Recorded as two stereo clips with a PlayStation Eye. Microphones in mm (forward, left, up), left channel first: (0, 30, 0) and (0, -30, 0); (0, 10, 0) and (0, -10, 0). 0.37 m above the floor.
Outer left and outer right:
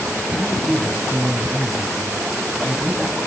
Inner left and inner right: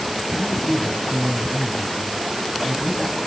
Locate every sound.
0.3 s a man speaking: 20° left (ahead or behind), 3 m